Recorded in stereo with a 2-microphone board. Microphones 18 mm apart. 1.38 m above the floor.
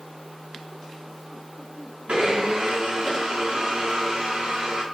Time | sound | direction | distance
2.1 | a blender | 70° right (ahead or behind) | 3.5 m